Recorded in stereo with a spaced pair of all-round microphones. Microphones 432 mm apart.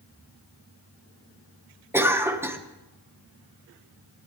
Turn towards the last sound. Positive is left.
turn(degrees=-5)  # may be behind; listen again after turning